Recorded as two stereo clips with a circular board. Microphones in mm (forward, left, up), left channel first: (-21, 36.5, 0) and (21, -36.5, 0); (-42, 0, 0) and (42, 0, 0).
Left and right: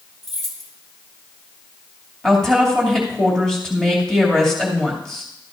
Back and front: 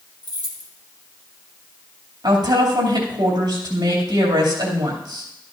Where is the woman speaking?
35° left, 2.5 m.